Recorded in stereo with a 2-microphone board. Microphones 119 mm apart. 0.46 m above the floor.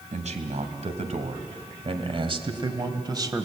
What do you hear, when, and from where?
0.1 s a man speaking: 75° right (ahead or behind), 2.5 m; by 3.5 s 30° right (ahead or behind), 2 m